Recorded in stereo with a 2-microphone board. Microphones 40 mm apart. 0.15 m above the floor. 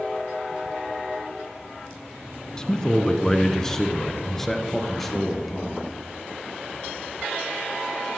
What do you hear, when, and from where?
2.6 s a man speaking: 20° left (ahead or behind), 1.1 m; by 5.8 s 5° left (ahead or behind), 2.5 m